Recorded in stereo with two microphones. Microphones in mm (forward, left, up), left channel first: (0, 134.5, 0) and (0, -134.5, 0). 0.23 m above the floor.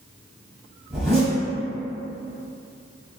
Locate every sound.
0.9 s a zipper: centre (ahead or behind), 1.5 m